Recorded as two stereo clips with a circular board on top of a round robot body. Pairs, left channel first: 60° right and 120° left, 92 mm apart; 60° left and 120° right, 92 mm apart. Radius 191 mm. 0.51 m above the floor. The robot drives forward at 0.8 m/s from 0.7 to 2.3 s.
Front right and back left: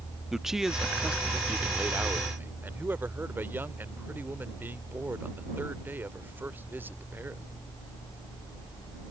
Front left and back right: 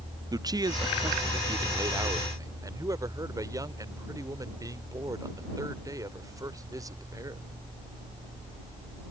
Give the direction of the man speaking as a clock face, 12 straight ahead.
5 o'clock.